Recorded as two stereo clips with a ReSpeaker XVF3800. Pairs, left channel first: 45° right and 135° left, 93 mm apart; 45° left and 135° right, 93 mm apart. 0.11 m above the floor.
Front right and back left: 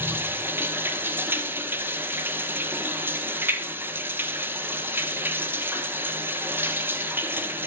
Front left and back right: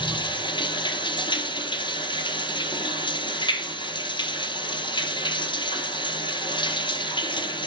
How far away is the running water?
About 1.1 m.